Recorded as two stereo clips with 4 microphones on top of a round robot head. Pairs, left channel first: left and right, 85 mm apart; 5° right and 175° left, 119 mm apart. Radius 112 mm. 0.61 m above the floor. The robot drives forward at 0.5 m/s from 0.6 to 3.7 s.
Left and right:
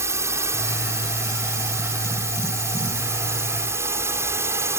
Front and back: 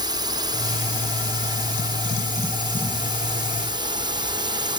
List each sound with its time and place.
0.0 s a drone: 140° right